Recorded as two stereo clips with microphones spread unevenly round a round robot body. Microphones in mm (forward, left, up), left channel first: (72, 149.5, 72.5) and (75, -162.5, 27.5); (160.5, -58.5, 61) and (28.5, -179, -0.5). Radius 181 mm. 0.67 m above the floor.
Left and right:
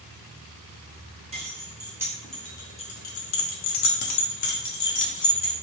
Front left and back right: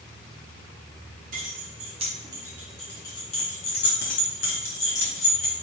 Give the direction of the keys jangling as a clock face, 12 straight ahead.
5 o'clock.